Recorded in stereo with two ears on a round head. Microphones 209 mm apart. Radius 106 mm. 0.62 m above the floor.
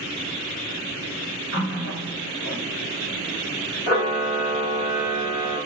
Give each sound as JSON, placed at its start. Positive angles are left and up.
{"t": 1.5, "sound": "a running tap", "side_deg": 70, "distance_m": 1.6}
{"t": 3.9, "sound": "a camera shutter", "side_deg": 40, "distance_m": 1.8}